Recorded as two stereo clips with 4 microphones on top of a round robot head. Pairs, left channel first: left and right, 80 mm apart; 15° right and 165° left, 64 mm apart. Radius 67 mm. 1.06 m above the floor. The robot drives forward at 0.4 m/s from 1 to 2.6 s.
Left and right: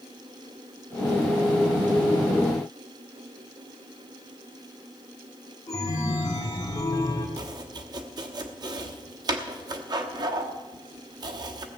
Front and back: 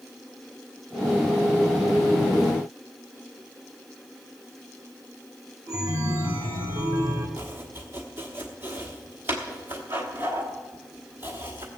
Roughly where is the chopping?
Behind right.